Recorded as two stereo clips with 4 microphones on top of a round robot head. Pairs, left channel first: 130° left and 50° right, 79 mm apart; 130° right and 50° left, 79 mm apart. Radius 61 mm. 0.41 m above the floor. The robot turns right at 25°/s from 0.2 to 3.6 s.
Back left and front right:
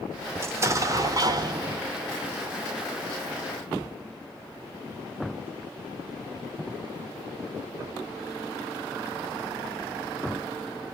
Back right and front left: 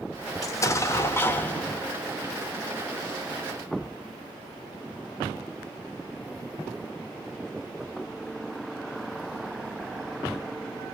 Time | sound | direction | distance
0.4 | an explosion | 95° right | 0.8 m